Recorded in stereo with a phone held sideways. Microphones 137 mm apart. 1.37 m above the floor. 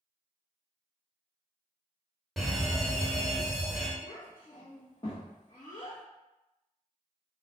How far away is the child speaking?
About 1.1 m.